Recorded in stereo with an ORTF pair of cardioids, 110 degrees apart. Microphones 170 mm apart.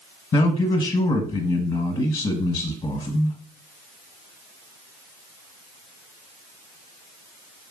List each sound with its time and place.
0.3 s a man speaking: 40° left, 0.9 m